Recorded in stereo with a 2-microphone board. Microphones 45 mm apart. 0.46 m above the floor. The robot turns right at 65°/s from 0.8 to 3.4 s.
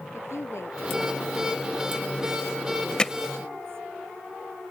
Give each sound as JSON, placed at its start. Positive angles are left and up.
{"t": 0.1, "sound": "a woman speaking", "azimuth_deg": 75}
{"t": 3.0, "sound": "hammering", "side_deg": 20}